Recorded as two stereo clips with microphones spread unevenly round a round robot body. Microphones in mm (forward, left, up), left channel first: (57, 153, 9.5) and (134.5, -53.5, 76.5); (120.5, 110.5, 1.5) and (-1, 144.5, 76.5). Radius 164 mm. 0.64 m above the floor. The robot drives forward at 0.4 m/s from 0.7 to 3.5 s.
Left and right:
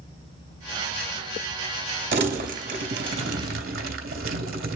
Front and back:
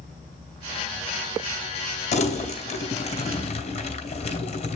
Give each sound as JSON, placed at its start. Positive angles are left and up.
{"t": 2.1, "sound": "crumpling", "azimuth_deg": -30, "distance_m": 3.0}